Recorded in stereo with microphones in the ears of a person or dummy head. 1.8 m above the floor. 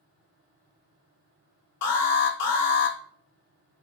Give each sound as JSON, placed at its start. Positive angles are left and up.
{"t": 1.8, "sound": "an alarm", "side_deg": 55, "distance_m": 0.8}